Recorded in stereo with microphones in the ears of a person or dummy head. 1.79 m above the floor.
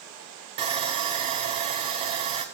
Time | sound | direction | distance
0.6 | sawing | 30° right (ahead or behind) | 0.7 m